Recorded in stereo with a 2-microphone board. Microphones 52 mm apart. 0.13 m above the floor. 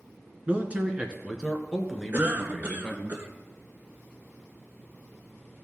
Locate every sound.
0.5 s a man speaking: 30° right (ahead or behind), 1.4 m; by 3.1 s 5° left (ahead or behind), 1.9 m
2.1 s a cough: 40° right (ahead or behind), 1.3 m